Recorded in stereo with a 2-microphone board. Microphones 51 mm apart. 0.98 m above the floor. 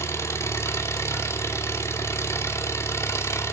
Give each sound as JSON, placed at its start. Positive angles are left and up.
{"t": 0.0, "sound": "an engine running", "side_deg": 70, "distance_m": 2.5}